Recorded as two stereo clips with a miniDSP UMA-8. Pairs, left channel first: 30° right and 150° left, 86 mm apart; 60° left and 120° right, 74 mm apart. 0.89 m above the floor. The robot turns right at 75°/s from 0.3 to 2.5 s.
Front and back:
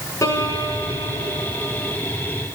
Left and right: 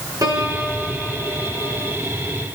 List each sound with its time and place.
0.2 s a piano: 85° right, 4.5 m; by 1.9 s 40° left, 4.5 m